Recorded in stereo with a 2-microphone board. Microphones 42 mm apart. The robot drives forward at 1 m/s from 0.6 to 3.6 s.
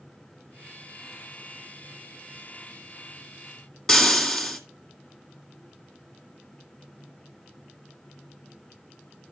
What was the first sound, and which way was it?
Frying, 10° left (ahead or behind).